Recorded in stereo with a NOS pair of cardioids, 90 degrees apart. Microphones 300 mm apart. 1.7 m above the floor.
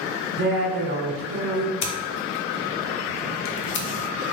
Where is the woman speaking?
45° right, 1.1 m.